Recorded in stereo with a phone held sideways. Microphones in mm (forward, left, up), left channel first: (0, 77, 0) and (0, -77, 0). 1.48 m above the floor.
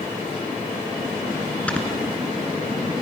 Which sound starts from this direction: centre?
Snoring, at 1.7 s.